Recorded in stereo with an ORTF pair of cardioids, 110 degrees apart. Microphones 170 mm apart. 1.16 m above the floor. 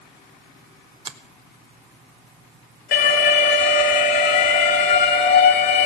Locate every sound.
1.1 s a finger snap: 30° right, 0.9 m
2.9 s an alarm: 65° left, 2.5 m